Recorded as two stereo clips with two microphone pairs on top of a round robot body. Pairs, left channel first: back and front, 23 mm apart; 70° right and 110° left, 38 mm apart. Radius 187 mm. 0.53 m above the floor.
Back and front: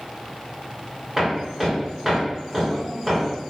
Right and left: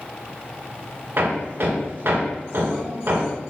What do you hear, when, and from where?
1.2 s hammering: 85° left, 2.5 m